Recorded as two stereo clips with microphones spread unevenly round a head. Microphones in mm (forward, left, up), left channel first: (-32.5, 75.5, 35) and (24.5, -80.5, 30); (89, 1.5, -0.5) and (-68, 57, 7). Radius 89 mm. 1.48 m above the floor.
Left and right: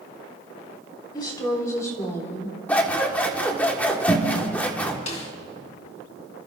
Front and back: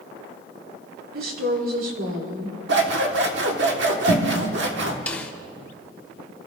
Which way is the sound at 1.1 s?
175° left.